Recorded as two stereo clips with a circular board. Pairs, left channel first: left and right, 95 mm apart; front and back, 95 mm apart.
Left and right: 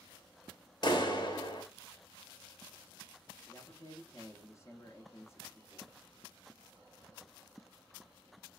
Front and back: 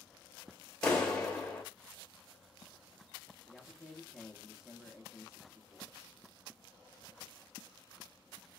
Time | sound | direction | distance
0.8 | a clap | 80° left | 1.0 m
3.5 | a man speaking | 95° left | 0.8 m